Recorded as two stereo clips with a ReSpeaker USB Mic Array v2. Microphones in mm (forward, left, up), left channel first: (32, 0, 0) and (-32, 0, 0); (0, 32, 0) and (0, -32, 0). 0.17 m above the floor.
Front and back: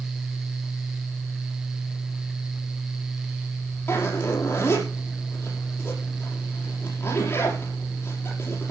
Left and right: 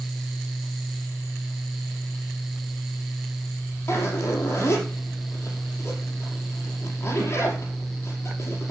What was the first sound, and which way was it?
A zipper, 45° left.